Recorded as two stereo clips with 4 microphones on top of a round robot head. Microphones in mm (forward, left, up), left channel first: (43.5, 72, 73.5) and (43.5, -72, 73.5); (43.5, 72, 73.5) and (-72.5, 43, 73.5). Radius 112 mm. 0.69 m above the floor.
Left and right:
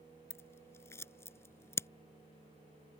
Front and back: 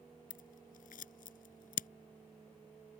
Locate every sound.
0.3 s scissors: 15° left